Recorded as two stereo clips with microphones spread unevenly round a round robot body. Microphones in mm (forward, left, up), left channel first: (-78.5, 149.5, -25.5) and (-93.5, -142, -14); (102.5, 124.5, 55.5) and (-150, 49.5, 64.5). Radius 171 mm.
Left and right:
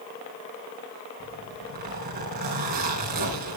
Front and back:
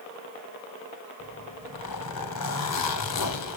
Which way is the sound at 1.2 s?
25° right.